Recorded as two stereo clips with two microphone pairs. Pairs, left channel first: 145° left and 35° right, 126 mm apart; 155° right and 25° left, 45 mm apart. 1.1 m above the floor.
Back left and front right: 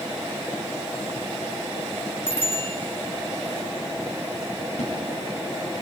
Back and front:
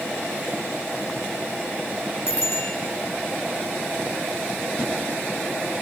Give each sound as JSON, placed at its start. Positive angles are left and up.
{"t": 2.3, "sound": "a bicycle bell", "azimuth_deg": -150, "distance_m": 4.5}
{"t": 4.8, "sound": "a splash", "azimuth_deg": 145, "distance_m": 9.5}